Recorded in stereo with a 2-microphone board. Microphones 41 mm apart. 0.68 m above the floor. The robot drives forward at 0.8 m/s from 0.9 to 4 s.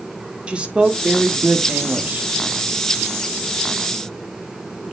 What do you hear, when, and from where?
0.5 s a woman speaking: 25° right (ahead or behind), 1.5 m; by 2.3 s 45° right (ahead or behind), 0.9 m